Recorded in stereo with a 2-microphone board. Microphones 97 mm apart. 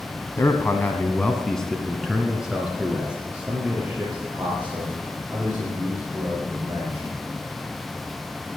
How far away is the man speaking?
About 1.5 m.